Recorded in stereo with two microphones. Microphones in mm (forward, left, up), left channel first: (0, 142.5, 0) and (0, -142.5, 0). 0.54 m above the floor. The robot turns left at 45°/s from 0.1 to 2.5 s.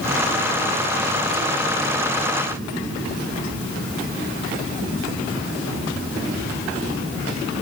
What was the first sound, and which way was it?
Only background noise.